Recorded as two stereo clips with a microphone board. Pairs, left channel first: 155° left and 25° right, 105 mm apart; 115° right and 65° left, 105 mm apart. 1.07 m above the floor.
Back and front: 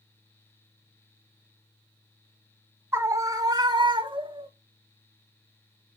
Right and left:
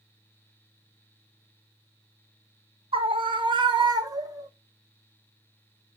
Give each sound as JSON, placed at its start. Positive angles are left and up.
{"t": 2.9, "sound": "a scream", "azimuth_deg": 45, "distance_m": 1.3}